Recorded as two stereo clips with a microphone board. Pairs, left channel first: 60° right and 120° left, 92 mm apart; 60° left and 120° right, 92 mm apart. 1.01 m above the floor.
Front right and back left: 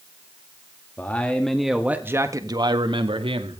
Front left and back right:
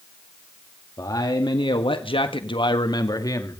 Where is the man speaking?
10° left, 2 m; by 3.6 s 115° left, 2.5 m.